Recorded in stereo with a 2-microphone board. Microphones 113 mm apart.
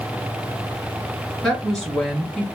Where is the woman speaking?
5° left (ahead or behind), 2 m.